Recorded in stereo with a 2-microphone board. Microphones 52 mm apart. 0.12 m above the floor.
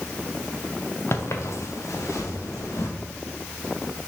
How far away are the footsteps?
About 1.0 m.